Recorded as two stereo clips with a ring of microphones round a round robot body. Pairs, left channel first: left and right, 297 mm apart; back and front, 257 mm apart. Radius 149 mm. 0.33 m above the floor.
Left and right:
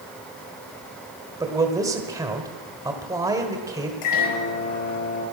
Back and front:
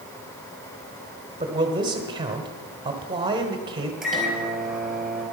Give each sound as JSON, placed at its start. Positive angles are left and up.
{"t": 1.4, "sound": "a man speaking", "azimuth_deg": -35, "distance_m": 1.5}
{"t": 4.0, "sound": "a microwave", "azimuth_deg": 90, "distance_m": 5.0}